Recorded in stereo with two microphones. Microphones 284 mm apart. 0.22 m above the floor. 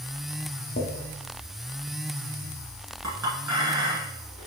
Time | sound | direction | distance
0.8 | a drawer | 40° left (ahead or behind) | 0.9 m
3.0 | a clink | 70° right (ahead or behind) | 1.7 m